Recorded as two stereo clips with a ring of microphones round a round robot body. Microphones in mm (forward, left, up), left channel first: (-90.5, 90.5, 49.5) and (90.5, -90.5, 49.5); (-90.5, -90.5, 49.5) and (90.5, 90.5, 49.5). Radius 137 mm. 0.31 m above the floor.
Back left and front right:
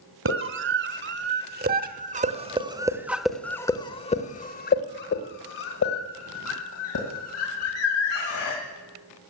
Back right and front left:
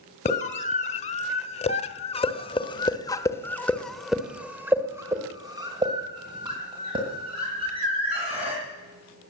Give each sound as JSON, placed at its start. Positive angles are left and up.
{"t": 0.2, "sound": "a scream", "azimuth_deg": -75, "distance_m": 2.0}